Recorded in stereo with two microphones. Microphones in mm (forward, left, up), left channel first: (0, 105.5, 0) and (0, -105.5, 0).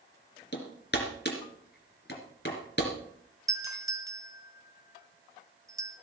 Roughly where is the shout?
I don't hear a shout.